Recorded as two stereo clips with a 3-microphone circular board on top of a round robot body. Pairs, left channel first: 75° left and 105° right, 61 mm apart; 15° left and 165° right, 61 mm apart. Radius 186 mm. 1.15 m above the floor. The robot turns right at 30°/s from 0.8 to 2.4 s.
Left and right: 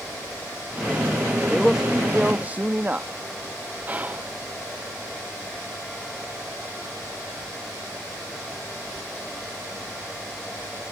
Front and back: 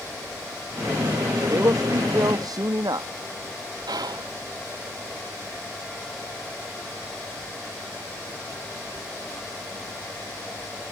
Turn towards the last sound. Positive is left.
turn(degrees=-175)